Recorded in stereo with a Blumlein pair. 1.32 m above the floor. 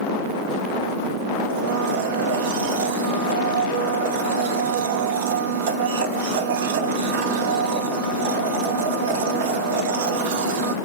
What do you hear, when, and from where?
1.5 s a blender: 50° right, 1.6 m